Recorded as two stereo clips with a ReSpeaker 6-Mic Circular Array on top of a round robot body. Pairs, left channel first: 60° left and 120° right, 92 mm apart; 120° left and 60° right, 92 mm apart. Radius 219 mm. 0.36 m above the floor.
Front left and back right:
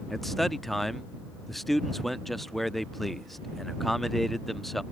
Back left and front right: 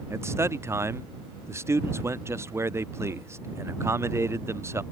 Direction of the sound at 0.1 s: 25° right.